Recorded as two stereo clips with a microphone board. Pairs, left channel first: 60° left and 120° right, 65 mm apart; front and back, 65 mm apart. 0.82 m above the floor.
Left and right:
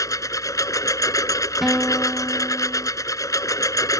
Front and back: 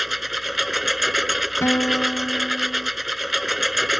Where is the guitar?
35° right.